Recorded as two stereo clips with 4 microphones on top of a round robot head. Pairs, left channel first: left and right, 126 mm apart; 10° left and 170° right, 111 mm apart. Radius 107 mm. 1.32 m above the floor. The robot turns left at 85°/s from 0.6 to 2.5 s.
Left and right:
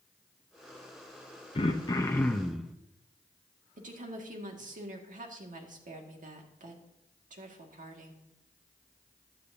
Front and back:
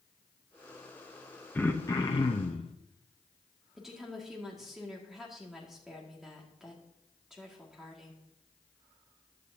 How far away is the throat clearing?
About 0.6 m.